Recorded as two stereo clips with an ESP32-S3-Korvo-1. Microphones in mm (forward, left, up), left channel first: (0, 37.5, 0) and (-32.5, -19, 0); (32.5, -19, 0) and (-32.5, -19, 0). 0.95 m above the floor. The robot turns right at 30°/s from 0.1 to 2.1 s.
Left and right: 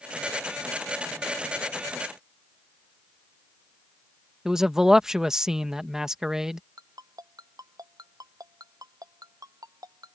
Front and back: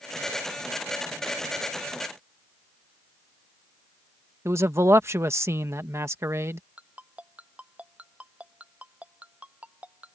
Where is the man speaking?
160° left.